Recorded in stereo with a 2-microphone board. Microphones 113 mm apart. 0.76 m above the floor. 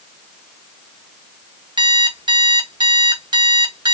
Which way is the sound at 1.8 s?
40° right (ahead or behind).